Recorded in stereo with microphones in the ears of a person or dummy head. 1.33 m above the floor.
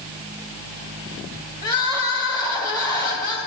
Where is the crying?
20° left (ahead or behind), 1.7 m.